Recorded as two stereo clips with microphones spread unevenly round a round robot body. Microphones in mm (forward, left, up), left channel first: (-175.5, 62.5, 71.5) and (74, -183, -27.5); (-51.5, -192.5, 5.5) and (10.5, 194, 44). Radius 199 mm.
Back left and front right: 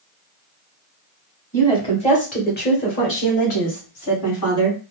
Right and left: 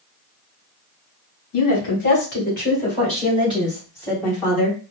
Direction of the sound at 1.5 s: 130° right.